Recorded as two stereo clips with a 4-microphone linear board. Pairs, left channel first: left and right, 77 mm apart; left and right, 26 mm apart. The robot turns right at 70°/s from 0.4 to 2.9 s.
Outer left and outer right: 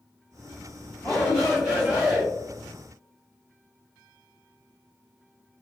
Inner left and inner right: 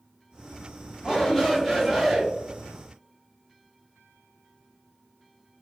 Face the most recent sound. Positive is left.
turn(degrees=-75)